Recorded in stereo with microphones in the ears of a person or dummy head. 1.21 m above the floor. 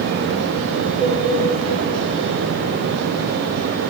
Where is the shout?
I don't hear a shout.